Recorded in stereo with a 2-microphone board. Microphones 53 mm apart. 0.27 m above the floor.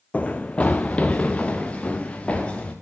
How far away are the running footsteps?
About 0.9 m.